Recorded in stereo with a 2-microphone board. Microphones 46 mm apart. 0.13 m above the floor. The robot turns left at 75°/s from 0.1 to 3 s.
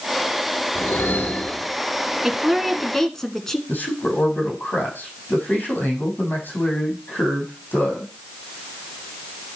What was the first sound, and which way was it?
A whoosh, 80° left.